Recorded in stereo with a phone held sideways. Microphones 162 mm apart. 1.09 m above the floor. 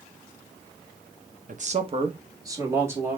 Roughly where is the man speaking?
Right.